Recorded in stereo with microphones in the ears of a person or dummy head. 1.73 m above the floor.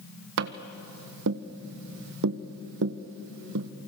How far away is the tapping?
About 1.0 m.